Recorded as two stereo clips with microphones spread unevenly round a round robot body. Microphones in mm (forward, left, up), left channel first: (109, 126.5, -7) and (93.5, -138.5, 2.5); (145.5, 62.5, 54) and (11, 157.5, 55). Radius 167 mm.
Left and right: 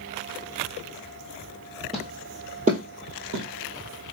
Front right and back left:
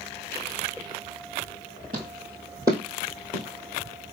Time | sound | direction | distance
1.9 | footsteps | straight behind | 0.9 m